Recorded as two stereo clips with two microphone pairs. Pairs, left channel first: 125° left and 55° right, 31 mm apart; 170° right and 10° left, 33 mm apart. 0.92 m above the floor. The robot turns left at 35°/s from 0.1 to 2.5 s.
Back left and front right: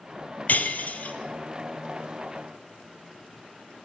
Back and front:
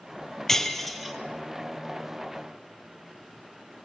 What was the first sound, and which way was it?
Breaking glass, 115° left.